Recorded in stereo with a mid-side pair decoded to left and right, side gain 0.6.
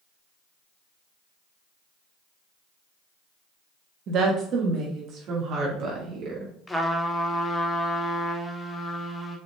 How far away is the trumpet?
About 1.3 m.